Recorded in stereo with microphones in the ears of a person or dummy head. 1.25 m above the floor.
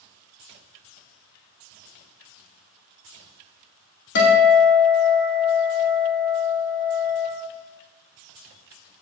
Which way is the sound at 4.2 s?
60° left (ahead or behind).